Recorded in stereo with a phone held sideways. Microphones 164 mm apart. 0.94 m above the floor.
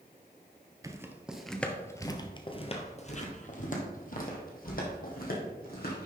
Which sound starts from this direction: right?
Footsteps, at 0.8 s.